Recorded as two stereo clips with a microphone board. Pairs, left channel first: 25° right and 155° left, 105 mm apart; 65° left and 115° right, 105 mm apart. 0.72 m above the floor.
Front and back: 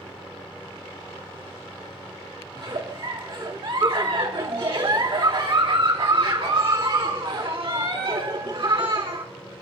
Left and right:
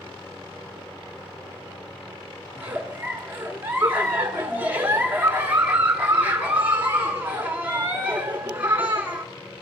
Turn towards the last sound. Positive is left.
turn(degrees=180)